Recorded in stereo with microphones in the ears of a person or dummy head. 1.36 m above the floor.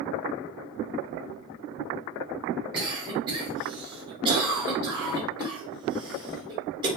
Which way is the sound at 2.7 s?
25° right (ahead or behind).